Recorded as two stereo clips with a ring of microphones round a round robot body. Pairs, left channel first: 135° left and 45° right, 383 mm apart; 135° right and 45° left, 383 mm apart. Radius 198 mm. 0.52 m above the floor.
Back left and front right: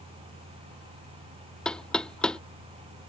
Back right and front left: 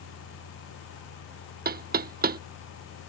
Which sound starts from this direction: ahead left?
Knocking, at 1.6 s.